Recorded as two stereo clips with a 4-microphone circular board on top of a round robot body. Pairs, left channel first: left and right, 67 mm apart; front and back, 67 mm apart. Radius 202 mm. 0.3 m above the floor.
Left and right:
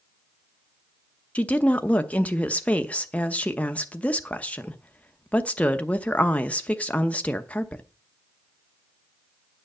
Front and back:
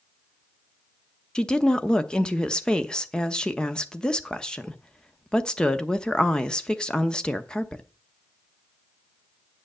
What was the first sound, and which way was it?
A woman speaking, 60° left.